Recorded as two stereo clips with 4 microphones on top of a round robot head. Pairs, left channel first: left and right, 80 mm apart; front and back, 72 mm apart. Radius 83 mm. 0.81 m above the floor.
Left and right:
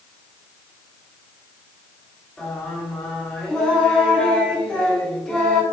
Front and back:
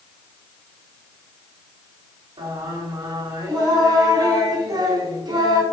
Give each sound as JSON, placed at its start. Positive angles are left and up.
{"t": 2.4, "sound": "singing", "azimuth_deg": 175, "distance_m": 3.0}